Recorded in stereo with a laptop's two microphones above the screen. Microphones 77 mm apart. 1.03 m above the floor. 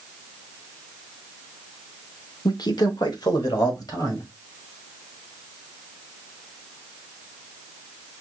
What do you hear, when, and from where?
2.5 s a man speaking: 65° left (ahead or behind), 0.6 m; by 4.3 s 55° left (ahead or behind), 2 m